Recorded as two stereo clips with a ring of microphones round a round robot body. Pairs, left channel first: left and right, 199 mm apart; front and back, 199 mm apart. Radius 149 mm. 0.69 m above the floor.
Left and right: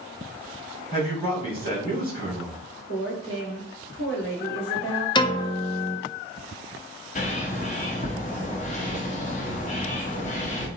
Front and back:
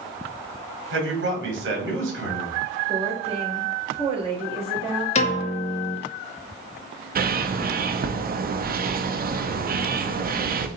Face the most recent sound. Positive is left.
turn(degrees=140)